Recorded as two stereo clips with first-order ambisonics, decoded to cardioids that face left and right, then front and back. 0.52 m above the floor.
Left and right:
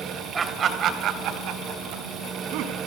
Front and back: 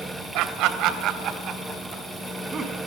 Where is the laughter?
160° right, 2.5 m; by 2.8 s 110° right, 5 m.